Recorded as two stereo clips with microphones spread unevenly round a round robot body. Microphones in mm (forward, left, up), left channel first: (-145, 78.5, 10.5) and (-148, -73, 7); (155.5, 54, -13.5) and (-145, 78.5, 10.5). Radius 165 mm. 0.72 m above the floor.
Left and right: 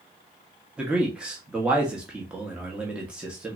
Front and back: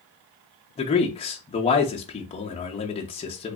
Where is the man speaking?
20° right, 0.5 m.